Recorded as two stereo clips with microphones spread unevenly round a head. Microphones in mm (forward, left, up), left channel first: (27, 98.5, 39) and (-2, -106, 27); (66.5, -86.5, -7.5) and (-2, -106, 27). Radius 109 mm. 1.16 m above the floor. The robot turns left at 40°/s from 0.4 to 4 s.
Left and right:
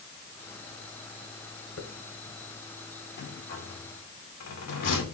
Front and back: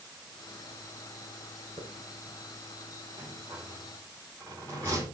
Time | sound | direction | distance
1.8 | a hiss | 75° left | 1.5 m
3.2 | a rattle | 125° left | 2.5 m